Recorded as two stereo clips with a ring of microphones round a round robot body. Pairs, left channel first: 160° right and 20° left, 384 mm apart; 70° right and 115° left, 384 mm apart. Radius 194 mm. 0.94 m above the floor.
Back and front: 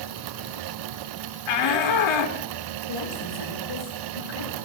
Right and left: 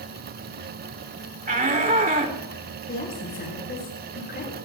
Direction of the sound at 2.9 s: 135° right.